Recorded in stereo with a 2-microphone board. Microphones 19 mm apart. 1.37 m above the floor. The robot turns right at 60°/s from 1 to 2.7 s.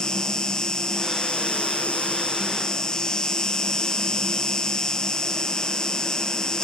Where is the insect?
40° left, 0.9 m; by 6.6 s 145° left, 0.9 m.